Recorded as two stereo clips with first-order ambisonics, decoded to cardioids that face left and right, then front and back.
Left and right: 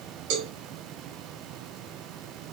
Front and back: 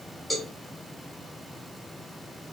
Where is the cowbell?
85° right, 0.9 m.